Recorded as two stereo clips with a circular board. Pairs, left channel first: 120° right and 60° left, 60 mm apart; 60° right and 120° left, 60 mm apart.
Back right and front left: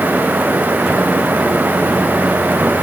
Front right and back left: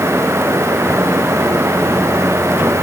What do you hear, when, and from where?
Only background noise.